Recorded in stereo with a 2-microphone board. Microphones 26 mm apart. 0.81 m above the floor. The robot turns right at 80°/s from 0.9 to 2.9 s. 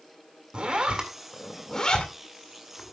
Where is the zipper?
45° right (ahead or behind), 2 m; by 2.9 s 65° left (ahead or behind), 2 m.